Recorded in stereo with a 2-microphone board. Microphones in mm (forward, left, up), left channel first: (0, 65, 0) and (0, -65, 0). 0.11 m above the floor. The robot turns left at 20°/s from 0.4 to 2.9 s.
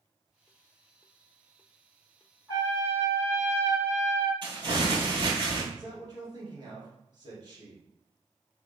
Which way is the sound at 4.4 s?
40° right (ahead or behind).